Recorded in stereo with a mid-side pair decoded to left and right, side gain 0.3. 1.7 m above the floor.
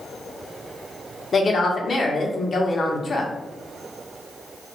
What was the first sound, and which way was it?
A woman speaking, 55° left.